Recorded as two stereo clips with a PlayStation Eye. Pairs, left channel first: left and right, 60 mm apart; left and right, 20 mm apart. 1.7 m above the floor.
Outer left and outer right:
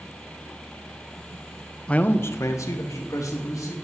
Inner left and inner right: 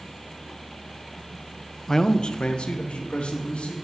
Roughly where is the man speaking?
Centre.